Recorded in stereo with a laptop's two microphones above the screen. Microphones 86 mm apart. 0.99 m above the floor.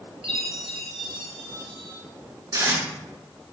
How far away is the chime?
About 2.5 m.